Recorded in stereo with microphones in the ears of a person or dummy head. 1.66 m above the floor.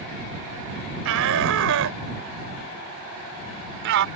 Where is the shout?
75° right (ahead or behind); by 4.1 s 65° right (ahead or behind).